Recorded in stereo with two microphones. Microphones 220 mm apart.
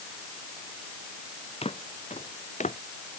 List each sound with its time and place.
1.6 s footsteps: 25° left (ahead or behind); by 2.8 s 35° left (ahead or behind)